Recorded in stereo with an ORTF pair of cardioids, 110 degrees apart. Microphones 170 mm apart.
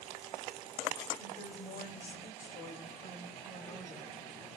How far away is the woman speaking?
About 2.5 m.